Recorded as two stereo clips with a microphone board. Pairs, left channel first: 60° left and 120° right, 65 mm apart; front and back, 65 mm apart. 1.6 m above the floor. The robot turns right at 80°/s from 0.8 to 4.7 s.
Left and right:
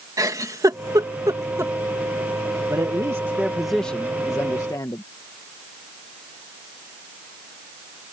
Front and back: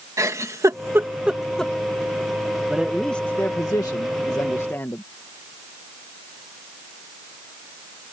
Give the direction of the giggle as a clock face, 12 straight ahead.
5 o'clock.